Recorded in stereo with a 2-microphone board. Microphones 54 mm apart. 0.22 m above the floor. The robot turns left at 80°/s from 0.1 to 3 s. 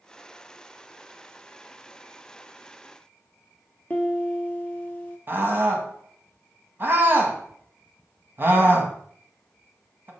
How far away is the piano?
About 1.1 m.